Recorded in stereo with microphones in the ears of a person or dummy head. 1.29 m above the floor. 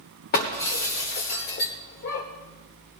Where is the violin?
I don't hear a violin.